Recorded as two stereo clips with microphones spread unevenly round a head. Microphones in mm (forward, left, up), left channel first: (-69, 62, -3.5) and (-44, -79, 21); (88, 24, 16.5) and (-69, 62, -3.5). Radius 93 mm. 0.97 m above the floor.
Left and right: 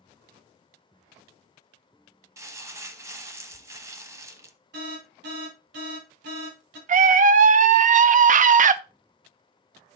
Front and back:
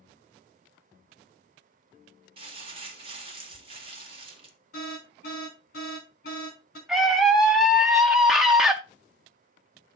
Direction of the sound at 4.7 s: 55° right.